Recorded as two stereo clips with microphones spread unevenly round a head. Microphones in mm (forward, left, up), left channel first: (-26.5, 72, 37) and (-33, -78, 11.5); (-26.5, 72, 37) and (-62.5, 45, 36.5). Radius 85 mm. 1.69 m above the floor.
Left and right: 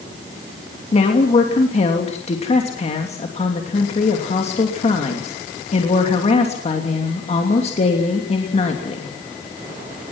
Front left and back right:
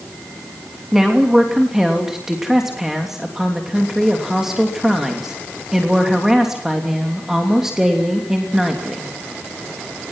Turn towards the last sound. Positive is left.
turn(degrees=135)